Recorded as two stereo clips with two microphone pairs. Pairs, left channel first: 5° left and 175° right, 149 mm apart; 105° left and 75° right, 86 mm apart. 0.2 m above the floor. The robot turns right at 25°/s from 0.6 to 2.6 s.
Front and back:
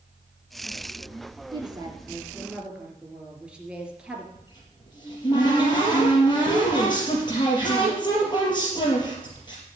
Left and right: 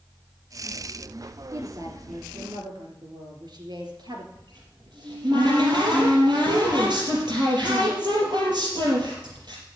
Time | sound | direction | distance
1.5 | a woman speaking | 120° right | 3 m
4.3 | a cupboard door | 50° right | 5 m